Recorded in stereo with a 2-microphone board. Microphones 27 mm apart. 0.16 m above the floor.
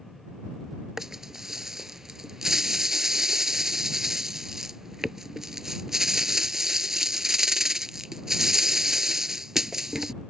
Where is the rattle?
20° right (ahead or behind).